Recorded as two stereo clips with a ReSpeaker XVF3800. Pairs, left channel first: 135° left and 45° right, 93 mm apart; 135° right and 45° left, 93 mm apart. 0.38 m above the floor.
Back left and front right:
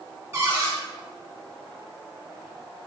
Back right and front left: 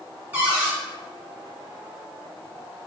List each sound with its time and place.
0.3 s a cupboard door: 10° right, 1.7 m